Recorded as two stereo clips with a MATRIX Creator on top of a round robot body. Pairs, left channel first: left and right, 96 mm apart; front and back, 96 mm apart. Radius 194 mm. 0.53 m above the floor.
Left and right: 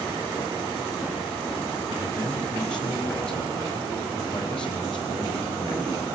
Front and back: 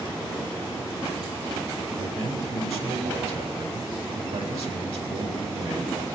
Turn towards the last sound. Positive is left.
turn(degrees=170)